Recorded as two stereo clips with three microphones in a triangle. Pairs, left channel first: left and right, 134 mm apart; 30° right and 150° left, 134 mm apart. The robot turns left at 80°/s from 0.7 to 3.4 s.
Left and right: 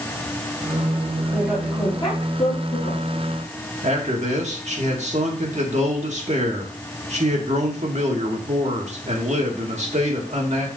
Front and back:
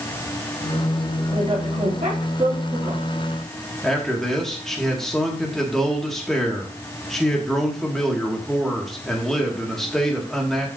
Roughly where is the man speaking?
Behind right.